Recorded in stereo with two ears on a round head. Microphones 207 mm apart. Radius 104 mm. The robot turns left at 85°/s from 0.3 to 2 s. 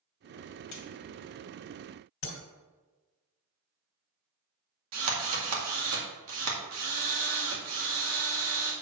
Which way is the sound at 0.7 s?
75° left (ahead or behind).